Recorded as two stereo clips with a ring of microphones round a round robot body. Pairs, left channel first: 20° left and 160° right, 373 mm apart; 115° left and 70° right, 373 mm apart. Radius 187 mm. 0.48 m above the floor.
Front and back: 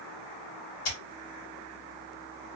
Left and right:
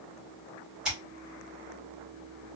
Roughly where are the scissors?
Ahead.